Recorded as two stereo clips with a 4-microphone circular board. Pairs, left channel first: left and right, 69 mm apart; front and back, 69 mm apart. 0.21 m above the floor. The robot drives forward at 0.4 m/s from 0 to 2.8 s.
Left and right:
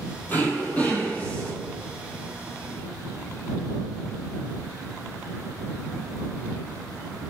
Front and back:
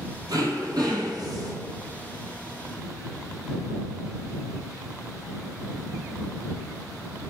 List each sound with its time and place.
0.3 s throat clearing: 155° left, 0.9 m; by 1.5 s 165° left, 1.4 m